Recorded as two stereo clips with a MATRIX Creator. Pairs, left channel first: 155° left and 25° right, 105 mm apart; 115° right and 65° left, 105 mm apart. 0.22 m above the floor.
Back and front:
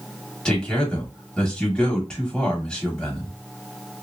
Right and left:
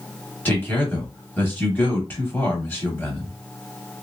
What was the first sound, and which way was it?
A man speaking, 135° right.